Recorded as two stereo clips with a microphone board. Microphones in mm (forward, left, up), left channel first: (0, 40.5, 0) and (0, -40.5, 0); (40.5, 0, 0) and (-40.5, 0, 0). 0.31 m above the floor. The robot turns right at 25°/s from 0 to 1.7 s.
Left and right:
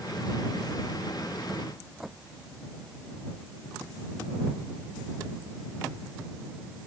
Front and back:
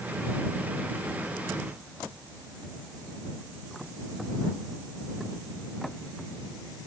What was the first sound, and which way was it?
Only background noise.